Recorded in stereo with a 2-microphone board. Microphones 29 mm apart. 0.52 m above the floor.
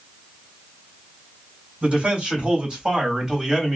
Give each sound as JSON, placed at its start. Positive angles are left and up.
{"t": 1.8, "sound": "a man speaking", "side_deg": -45, "distance_m": 1.8}